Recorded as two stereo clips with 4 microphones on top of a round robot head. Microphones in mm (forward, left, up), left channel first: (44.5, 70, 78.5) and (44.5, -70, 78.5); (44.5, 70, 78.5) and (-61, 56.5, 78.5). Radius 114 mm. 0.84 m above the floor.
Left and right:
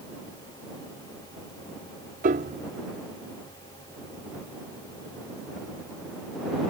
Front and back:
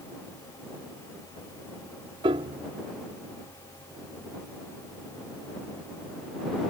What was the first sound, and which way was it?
A piano, 125° right.